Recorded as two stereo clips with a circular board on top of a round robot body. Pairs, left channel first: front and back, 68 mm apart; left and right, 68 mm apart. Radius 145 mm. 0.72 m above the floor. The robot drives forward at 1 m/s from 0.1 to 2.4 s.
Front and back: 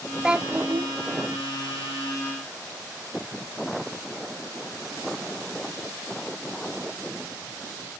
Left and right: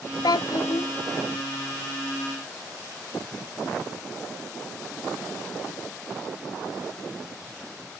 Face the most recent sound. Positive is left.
turn(degrees=165)